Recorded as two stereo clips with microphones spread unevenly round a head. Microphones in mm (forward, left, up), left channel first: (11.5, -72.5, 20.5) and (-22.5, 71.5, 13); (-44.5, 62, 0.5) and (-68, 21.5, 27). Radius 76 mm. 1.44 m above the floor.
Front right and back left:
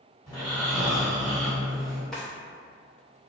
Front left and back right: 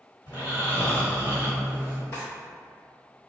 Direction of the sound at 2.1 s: Straight ahead.